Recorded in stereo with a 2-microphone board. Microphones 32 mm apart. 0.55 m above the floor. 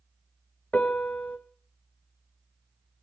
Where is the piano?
45° left (ahead or behind), 1.6 m.